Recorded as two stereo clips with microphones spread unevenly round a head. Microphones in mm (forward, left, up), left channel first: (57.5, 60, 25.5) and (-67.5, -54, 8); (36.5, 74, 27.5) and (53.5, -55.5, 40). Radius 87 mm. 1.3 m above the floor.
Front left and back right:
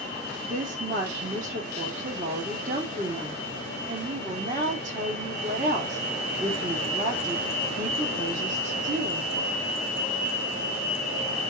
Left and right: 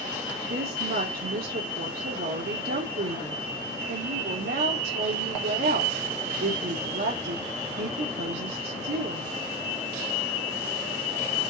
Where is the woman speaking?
90° right, 3 m.